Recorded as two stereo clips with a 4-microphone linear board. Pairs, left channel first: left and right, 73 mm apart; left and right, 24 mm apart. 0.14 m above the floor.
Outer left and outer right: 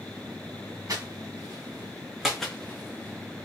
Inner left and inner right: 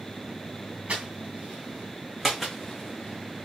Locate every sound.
0.9 s footsteps: 50° right (ahead or behind), 1.1 m; by 3.5 s 50° left (ahead or behind), 0.8 m